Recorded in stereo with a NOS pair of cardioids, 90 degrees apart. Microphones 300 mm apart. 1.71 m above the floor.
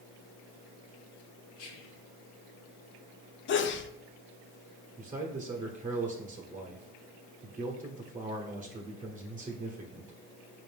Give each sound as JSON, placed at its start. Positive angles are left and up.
{"t": 1.6, "sound": "whispering", "azimuth_deg": 50, "distance_m": 1.1}
{"t": 3.5, "sound": "a sneeze", "azimuth_deg": 40, "distance_m": 0.5}
{"t": 5.0, "sound": "a man speaking", "azimuth_deg": -25, "distance_m": 1.0}